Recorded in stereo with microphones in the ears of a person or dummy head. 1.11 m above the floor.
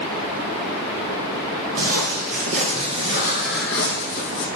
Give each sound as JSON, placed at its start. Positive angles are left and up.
{"t": 1.8, "sound": "footsteps", "side_deg": -45, "distance_m": 2.5}